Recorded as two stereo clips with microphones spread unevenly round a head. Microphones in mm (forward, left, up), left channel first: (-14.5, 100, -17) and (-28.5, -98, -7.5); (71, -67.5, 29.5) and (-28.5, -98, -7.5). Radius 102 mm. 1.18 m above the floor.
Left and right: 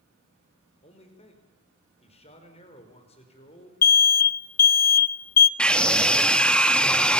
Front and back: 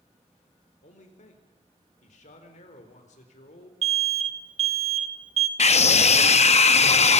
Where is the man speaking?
25° left, 4.5 m.